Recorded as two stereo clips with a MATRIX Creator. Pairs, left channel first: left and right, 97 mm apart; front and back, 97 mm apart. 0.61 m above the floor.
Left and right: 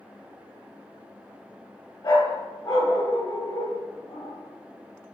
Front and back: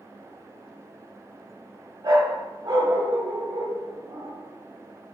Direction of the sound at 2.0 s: 140° left.